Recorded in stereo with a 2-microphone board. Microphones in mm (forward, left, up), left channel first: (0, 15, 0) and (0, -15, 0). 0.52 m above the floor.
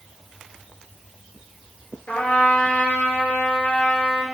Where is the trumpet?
70° left (ahead or behind), 2.5 m.